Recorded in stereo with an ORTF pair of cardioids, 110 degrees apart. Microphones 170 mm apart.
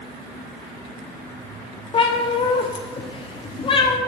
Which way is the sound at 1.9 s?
30° left.